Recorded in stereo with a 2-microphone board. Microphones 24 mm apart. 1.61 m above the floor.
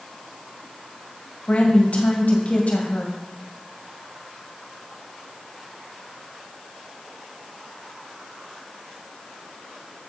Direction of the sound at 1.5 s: 70° left (ahead or behind).